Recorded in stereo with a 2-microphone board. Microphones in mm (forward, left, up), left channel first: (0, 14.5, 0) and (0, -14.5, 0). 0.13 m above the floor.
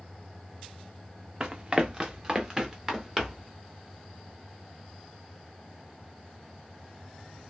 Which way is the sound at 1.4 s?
25° right (ahead or behind).